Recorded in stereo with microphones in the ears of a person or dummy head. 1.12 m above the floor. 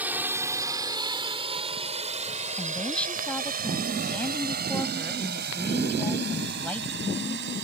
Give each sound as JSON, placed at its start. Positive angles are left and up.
{"t": 0.0, "sound": "a drone", "side_deg": -10}
{"t": 2.6, "sound": "a woman speaking", "side_deg": 10}